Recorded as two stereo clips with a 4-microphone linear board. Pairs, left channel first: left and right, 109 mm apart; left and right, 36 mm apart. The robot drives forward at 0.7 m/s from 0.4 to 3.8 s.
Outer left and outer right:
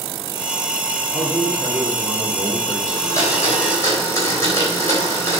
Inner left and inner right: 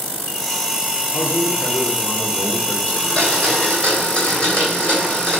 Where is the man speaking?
55° left (ahead or behind), 1.5 m; by 2.8 s 30° left (ahead or behind), 2 m.